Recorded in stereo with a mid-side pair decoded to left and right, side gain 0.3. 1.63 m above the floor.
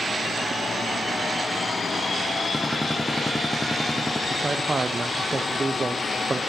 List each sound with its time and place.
2.5 s a gunshot: 10° left, 0.6 m
4.3 s a man speaking: 40° right, 0.6 m